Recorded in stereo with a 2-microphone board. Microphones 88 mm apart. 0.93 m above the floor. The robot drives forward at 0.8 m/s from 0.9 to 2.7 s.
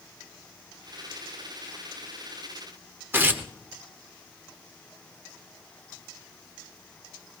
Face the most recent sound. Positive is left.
turn(degrees=-25)  # may be behind; listen again after turning